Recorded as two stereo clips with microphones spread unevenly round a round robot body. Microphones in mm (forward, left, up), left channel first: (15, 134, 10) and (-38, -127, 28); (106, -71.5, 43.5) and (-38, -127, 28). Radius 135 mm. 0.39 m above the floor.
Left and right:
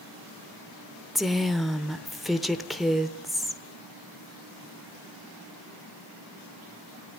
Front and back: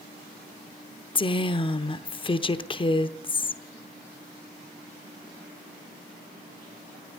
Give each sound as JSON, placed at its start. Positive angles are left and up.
{"t": 1.1, "sound": "a woman speaking", "azimuth_deg": -5, "distance_m": 0.9}